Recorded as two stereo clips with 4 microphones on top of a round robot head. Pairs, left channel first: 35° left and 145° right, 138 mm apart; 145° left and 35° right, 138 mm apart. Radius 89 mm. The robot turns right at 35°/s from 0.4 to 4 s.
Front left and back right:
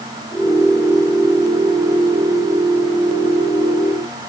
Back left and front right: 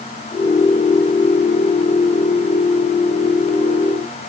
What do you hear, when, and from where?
Only background noise.